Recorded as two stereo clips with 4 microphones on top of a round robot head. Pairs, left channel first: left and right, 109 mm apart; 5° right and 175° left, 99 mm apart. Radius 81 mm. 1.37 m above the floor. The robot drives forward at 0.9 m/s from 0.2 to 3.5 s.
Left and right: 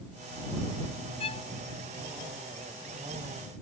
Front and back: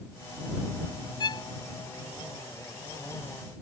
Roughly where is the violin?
Ahead left.